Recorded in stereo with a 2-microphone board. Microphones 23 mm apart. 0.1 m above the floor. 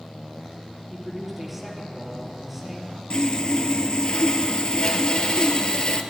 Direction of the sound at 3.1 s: 40° left (ahead or behind).